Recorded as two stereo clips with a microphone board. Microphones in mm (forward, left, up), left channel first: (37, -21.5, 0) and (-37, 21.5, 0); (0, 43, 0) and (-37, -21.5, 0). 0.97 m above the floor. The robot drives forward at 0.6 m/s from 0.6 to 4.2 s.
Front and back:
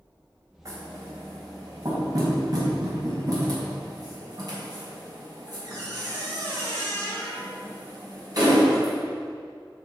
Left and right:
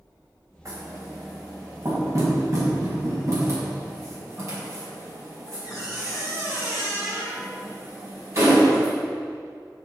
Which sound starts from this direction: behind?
Knocking, at 0.7 s.